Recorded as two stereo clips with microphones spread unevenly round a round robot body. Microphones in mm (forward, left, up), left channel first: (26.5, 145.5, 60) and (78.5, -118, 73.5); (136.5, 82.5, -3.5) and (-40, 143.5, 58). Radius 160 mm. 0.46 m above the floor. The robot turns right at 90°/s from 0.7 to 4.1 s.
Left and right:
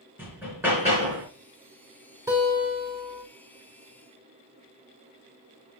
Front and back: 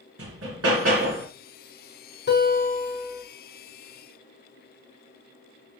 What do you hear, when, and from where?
0.2 s hammering: 160° right, 3.5 m; by 1.3 s 110° right, 3.5 m
2.3 s a guitar: straight ahead, 4.5 m; by 3.2 s 85° left, 4.5 m